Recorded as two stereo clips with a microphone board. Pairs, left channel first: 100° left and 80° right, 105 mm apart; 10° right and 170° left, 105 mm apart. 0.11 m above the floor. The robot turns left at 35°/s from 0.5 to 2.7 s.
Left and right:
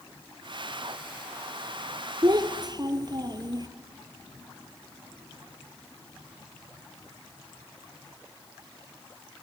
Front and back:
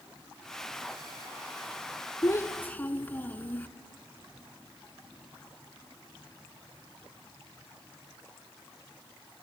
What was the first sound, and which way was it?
A child speaking, 60° right.